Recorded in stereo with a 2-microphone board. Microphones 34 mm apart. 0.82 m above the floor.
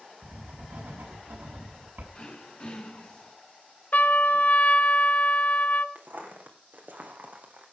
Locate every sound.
0.2 s writing: 70° right (ahead or behind), 5.5 m
2.1 s throat clearing: 30° left (ahead or behind), 4 m
3.9 s a trumpet: 55° left (ahead or behind), 1.3 m
6.0 s footsteps: 60° right (ahead or behind), 3 m; by 7.7 s 50° right (ahead or behind), 2.5 m